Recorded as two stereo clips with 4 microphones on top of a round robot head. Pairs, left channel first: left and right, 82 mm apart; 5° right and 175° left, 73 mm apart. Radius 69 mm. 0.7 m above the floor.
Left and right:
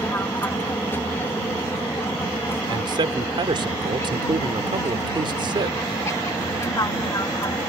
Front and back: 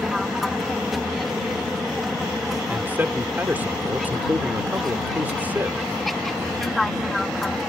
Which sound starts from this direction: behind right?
A man speaking, at 2.7 s.